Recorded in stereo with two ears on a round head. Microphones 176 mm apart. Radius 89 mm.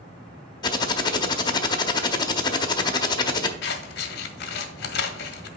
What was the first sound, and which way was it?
Typing on a keyboard, 20° left (ahead or behind).